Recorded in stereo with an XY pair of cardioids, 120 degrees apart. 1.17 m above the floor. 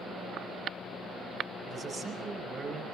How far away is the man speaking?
About 5.5 m.